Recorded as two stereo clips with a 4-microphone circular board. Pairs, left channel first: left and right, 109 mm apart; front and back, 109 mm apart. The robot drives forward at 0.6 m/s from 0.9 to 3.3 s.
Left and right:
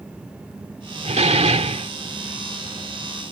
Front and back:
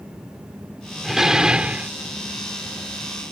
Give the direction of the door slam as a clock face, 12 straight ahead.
3 o'clock.